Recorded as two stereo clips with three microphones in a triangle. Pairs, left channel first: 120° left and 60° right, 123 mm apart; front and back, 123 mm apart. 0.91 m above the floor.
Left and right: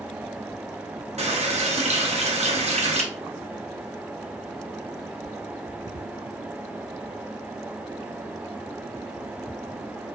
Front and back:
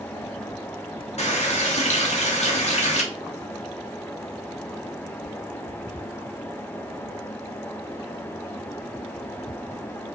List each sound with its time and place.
1.2 s a running tap: 30° right, 0.7 m